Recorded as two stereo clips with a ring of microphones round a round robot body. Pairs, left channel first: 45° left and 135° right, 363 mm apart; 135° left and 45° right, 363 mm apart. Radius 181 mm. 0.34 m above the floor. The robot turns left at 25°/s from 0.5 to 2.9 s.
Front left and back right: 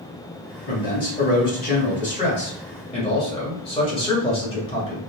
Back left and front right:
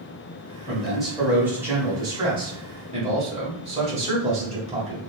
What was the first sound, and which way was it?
A man speaking, 50° left.